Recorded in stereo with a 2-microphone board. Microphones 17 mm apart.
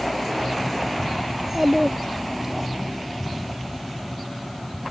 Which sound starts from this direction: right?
A child speaking, at 1.3 s.